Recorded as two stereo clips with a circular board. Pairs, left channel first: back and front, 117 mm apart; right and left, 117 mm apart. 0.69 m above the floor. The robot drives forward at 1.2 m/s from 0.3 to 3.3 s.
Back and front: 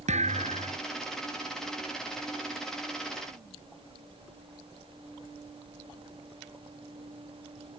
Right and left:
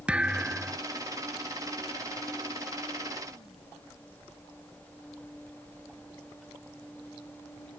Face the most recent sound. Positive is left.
turn(degrees=30)